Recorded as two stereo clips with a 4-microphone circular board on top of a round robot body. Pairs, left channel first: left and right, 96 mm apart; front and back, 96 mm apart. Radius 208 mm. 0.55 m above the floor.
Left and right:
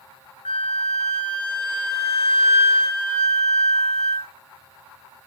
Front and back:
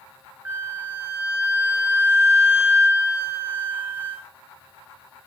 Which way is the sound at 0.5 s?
110° left.